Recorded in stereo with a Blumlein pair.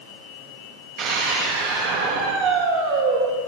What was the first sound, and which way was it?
A scream, 50° right.